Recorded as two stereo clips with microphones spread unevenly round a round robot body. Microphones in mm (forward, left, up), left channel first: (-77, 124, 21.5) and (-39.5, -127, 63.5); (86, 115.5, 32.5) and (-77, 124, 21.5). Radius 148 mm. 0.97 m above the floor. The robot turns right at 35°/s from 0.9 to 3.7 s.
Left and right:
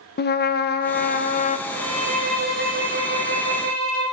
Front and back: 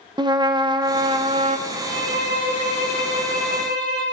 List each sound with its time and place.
0.2 s a trumpet: 125° left, 1.2 m; by 1.6 s 150° left, 1.2 m
1.7 s a violin: 155° right, 6 m; by 4.0 s 85° right, 6 m